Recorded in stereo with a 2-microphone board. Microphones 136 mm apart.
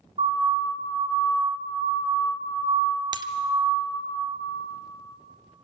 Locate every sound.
0.2 s a siren: 60° right (ahead or behind), 5.5 m; by 4.0 s 70° right (ahead or behind), 9.5 m
3.1 s breaking glass: 30° right (ahead or behind), 0.7 m